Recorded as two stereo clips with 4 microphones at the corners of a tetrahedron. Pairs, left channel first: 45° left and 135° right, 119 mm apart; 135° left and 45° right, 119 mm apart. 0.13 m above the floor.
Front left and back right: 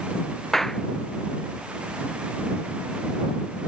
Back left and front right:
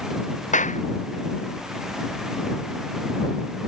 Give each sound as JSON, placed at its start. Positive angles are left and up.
{"t": 0.5, "sound": "a clap", "azimuth_deg": 135}